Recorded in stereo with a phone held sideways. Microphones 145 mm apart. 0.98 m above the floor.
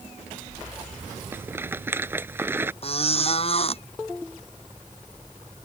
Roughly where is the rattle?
Centre.